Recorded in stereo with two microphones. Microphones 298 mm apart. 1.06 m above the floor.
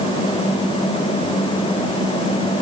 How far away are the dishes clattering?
No dishes clattering in this recording.